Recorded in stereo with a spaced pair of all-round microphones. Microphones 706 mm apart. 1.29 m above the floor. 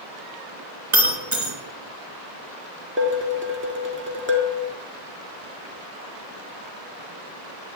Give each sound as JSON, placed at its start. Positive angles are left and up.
{"t": 0.9, "sound": "breaking glass", "side_deg": -45, "distance_m": 3.0}
{"t": 3.0, "sound": "dishes clattering", "side_deg": -15, "distance_m": 2.0}